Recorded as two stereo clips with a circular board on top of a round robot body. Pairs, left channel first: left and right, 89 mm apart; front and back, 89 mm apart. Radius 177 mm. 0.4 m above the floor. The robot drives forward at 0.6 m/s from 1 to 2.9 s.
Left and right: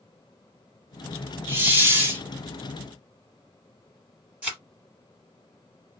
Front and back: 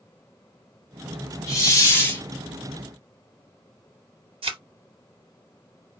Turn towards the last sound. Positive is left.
turn(degrees=-170)